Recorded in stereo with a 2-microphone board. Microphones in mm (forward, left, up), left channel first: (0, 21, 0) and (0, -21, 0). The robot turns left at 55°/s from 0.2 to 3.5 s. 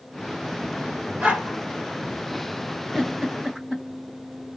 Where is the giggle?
40° right (ahead or behind), 1.6 m; by 3.8 s 15° right (ahead or behind), 1.6 m.